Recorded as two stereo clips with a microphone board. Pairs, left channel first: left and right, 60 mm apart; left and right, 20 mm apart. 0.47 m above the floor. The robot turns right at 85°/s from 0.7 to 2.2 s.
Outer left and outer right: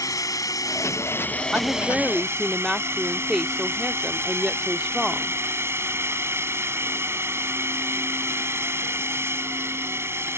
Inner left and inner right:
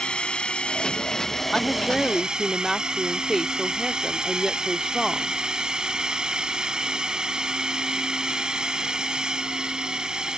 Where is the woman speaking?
20° right (ahead or behind); by 5.4 s 5° right (ahead or behind).